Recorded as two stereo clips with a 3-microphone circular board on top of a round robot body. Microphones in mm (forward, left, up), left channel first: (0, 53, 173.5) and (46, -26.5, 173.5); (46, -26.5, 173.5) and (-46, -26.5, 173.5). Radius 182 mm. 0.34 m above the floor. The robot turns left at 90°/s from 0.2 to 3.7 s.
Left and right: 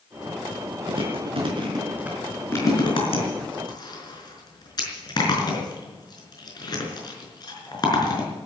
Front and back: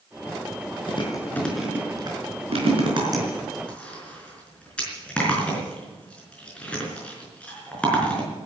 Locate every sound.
0.9 s chewing: 30° right, 5 m; by 8.3 s 80° left, 5 m